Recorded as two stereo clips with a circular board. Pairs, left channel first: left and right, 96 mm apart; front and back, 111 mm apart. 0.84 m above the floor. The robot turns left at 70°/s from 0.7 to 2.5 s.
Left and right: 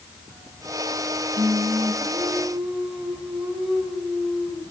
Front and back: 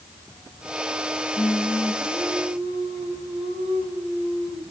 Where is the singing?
95° right, 4.5 m; by 4.6 s 175° right, 4.5 m.